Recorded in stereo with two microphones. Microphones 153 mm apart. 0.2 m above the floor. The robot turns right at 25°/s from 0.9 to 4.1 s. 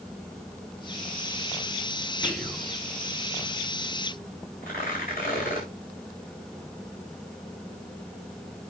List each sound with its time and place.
2.2 s whispering: 15° left (ahead or behind), 1.7 m; by 2.7 s 5° left (ahead or behind), 1.7 m
4.6 s tearing paper: 70° left (ahead or behind), 9.5 m